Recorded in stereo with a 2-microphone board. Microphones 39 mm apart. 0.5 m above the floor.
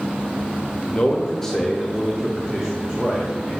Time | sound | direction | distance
0.9 | a man speaking | 25° left (ahead or behind) | 0.9 m